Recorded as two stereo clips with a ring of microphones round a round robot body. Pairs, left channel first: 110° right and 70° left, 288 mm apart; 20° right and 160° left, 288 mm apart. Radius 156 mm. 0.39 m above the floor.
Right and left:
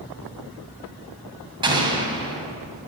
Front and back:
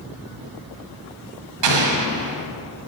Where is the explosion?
140° left, 1.9 m.